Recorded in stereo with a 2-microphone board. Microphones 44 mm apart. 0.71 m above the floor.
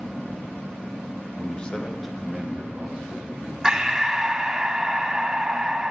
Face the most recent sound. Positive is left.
turn(degrees=-15)  # may be behind; listen again after turning